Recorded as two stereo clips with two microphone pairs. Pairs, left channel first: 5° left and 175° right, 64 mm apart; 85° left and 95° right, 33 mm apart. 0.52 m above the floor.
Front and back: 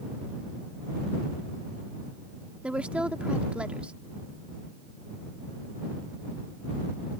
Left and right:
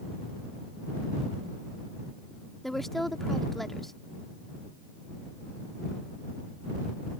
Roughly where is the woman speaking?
Behind left.